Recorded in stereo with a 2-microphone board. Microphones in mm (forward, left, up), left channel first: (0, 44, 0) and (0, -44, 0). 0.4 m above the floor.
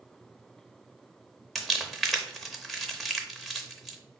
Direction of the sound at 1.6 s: Centre (ahead or behind).